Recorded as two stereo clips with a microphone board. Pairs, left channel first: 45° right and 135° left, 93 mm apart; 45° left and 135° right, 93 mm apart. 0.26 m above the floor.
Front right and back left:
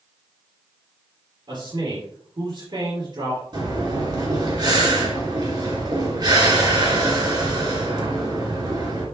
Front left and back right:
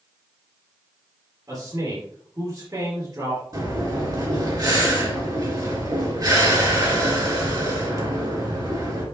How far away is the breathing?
About 3.5 m.